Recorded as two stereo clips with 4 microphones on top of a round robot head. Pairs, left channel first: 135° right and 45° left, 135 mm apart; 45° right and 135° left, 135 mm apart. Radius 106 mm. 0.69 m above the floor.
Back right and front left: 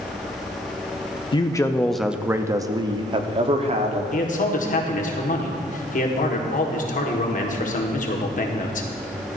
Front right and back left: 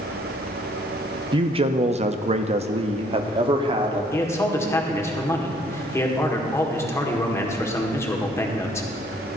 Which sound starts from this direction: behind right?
A man speaking, at 4.1 s.